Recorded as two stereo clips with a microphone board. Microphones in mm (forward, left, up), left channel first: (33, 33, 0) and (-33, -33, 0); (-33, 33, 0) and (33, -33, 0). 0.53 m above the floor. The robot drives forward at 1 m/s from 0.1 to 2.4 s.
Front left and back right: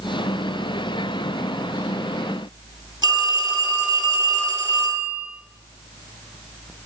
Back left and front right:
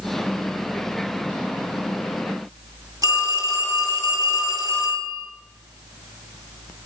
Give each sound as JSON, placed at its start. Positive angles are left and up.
{"t": 3.0, "sound": "a phone ringing", "azimuth_deg": -100, "distance_m": 4.5}